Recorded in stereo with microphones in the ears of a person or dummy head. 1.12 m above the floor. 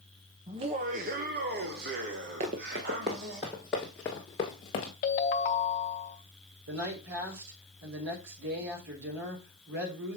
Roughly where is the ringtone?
Left.